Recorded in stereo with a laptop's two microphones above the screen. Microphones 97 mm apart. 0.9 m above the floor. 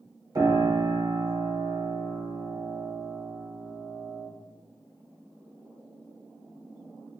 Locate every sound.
0.3 s a piano: 45° right (ahead or behind), 1.0 m